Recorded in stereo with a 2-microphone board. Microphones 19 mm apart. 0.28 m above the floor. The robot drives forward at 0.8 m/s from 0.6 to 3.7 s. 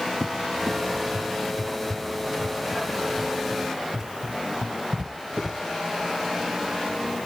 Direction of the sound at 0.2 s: 65° right (ahead or behind).